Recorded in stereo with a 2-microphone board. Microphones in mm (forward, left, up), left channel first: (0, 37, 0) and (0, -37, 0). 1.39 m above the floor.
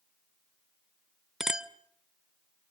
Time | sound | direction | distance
1.4 | a clink | 10° right (ahead or behind) | 0.6 m